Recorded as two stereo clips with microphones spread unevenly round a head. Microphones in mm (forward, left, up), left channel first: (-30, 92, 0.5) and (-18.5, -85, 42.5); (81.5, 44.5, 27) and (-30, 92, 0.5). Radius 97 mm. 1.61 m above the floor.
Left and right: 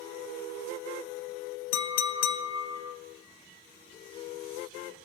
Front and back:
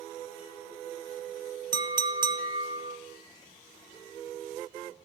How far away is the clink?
About 0.9 m.